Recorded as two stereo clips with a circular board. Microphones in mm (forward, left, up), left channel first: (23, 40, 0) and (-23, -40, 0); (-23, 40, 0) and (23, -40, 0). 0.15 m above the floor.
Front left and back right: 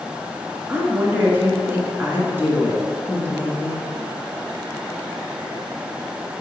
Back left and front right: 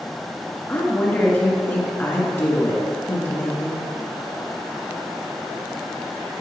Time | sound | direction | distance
0.7 | a woman speaking | straight behind | 1.9 m